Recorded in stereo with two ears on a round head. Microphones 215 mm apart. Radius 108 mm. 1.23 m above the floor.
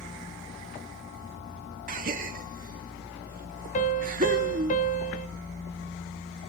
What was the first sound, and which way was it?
A gasp, 40° right (ahead or behind).